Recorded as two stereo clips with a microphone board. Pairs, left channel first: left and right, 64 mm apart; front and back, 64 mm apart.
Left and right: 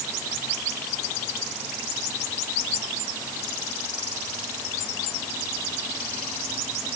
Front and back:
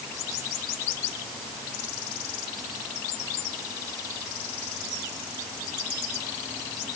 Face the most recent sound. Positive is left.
No sound to turn to.